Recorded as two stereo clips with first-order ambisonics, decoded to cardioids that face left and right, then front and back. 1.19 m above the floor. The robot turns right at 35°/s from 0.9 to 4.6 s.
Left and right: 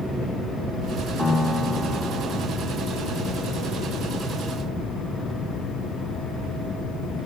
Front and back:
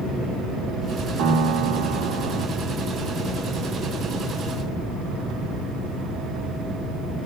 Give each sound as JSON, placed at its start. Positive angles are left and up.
{"t": 1.2, "sound": "a piano", "azimuth_deg": 155, "distance_m": 2.0}